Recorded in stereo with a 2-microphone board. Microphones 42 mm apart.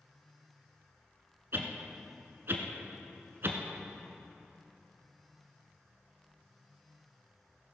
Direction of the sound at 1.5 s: 60° right (ahead or behind).